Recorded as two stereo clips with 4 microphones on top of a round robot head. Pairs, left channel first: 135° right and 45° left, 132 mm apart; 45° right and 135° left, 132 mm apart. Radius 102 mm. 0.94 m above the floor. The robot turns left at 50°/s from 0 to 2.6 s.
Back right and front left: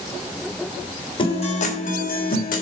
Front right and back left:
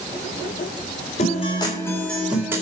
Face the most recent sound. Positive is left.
turn(degrees=-155)